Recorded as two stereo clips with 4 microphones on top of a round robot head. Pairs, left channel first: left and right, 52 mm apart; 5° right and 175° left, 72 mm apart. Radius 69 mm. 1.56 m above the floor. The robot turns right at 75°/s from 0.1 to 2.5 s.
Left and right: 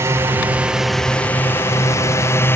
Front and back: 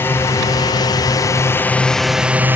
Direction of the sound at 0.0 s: 60° right.